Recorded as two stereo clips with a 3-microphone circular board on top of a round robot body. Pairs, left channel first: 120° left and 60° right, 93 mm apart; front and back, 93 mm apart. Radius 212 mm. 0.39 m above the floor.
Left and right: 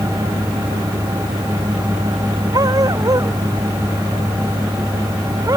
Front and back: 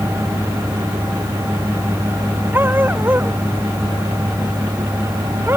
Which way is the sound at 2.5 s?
110° right.